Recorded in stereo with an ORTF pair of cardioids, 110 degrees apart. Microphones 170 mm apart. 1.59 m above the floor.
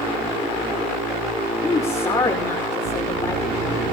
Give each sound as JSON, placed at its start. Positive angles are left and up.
{"t": 1.6, "sound": "a woman speaking", "azimuth_deg": 20, "distance_m": 5.0}